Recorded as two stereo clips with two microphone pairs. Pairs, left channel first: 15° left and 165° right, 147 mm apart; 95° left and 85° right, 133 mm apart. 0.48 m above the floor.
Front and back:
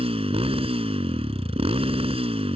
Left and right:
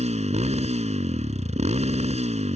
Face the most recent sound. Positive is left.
turn(degrees=-120)